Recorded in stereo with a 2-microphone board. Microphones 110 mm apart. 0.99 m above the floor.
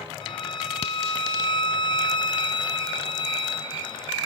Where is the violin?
50° left (ahead or behind), 1.7 m.